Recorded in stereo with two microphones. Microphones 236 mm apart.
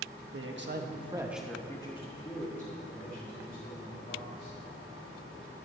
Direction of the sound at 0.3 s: 65° right (ahead or behind).